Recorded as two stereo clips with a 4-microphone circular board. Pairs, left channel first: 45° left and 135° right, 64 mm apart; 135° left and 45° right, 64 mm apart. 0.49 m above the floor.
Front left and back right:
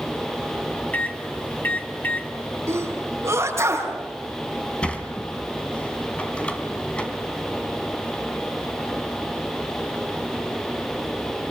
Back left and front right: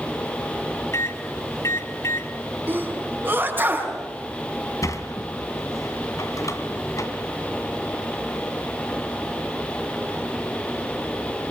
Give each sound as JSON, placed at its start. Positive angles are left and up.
{"t": 0.9, "sound": "a microwave", "azimuth_deg": 105, "distance_m": 3.0}
{"t": 2.7, "sound": "a sneeze", "azimuth_deg": -100, "distance_m": 5.5}
{"t": 4.8, "sound": "a sliding door", "azimuth_deg": 115, "distance_m": 2.5}